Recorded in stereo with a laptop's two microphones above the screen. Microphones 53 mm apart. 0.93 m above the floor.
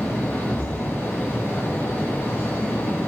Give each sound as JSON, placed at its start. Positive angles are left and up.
{"t": 0.0, "sound": "a fan", "side_deg": 40, "distance_m": 1.1}